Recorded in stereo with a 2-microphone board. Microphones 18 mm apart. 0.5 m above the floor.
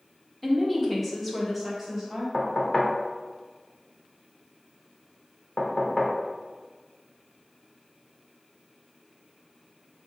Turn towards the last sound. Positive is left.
turn(degrees=30)  # may be behind; listen again after turning